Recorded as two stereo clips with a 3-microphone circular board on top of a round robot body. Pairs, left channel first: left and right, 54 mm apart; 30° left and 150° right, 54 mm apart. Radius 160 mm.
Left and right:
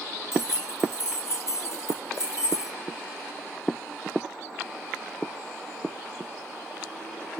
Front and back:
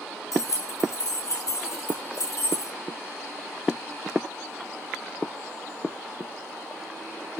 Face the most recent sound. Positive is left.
turn(degrees=55)